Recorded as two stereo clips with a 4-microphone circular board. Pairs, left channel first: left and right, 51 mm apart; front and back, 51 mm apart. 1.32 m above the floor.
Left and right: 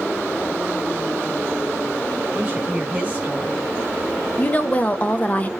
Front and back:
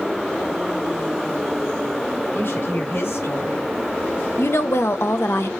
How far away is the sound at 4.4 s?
About 1.0 m.